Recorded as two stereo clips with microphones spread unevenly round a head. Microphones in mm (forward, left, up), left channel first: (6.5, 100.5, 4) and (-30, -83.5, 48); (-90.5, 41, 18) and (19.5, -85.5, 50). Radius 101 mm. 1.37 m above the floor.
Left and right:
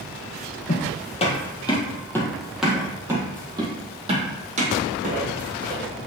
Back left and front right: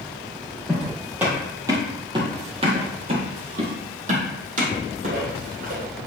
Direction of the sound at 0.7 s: 30° left.